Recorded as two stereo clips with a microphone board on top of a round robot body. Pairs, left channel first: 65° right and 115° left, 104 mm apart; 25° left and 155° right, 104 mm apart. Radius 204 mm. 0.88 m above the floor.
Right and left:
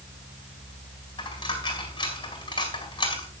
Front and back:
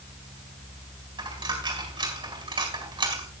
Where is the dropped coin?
115° right, 4 m.